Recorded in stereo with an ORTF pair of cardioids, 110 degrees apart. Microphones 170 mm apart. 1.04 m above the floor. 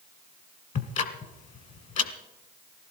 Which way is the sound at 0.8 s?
50° left.